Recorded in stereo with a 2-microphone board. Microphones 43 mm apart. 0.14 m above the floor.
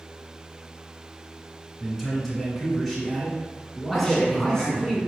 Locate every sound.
1.8 s a man speaking: centre (ahead or behind), 1.8 m; by 4.9 s 10° left (ahead or behind), 1.7 m
3.9 s a man speaking: centre (ahead or behind), 1.3 m